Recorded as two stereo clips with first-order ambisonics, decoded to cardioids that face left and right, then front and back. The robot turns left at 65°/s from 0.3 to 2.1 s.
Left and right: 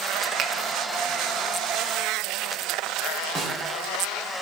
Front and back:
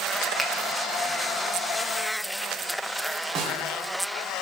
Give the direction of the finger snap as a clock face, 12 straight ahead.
3 o'clock.